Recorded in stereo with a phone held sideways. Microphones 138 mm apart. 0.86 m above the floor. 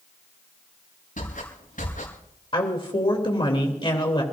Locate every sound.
1.2 s footsteps: 80° left, 6 m
2.5 s a woman speaking: 40° left (ahead or behind), 3 m